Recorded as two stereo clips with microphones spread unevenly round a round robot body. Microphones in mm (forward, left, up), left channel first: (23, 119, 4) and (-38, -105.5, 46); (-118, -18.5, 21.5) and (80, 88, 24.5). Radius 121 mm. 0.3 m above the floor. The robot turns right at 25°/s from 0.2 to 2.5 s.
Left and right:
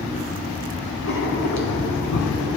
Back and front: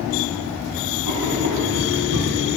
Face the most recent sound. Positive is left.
turn(degrees=70)